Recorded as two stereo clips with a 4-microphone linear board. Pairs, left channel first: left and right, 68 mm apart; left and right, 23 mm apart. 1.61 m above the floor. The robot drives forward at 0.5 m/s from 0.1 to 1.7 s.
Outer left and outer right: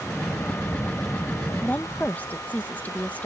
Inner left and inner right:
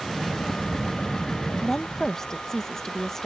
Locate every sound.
1.6 s a woman speaking: 20° left (ahead or behind); by 3.3 s 25° left (ahead or behind)